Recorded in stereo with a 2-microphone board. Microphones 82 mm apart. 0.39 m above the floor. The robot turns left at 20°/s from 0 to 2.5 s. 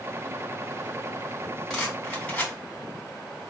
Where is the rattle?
5° left (ahead or behind), 3.5 m; by 2.5 s 20° left (ahead or behind), 3.5 m.